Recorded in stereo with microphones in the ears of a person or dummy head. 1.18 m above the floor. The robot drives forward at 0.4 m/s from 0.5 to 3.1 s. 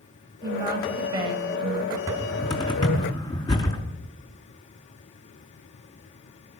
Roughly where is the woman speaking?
Right.